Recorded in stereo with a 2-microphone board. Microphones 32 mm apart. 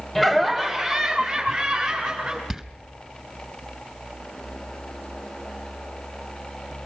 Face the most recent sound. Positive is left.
turn(degrees=-20)  # may be behind; listen again after turning